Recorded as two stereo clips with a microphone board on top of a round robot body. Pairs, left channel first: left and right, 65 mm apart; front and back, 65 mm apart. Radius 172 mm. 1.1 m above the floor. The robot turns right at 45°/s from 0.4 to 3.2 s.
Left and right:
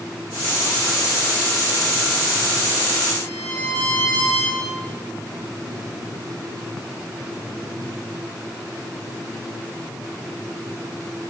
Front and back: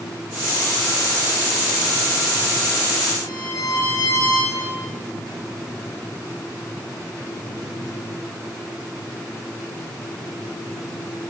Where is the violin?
30° left, 10 m; by 4.6 s 35° left, 10 m.